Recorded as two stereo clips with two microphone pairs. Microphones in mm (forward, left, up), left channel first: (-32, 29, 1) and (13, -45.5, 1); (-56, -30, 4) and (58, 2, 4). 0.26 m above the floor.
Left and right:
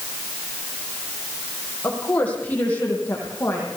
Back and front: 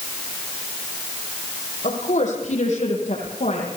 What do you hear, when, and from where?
1.8 s a woman speaking: 165° right, 9.5 m; by 3.7 s 170° right, 10.5 m